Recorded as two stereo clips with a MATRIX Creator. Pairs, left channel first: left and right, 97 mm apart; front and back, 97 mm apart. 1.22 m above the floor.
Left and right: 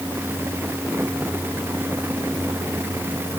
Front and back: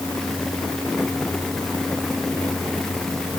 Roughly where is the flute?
I don't hear a flute.